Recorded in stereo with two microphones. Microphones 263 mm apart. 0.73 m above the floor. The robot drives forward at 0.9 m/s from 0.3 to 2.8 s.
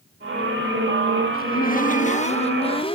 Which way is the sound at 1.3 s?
35° left (ahead or behind).